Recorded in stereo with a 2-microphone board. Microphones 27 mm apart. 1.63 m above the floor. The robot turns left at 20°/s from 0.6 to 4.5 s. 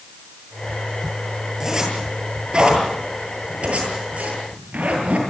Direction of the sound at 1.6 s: 20° right (ahead or behind).